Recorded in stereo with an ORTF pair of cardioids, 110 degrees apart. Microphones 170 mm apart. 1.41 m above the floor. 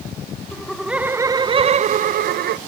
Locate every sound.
0.5 s laughter: 5° left, 1.1 m; by 2.6 s 70° right, 1.2 m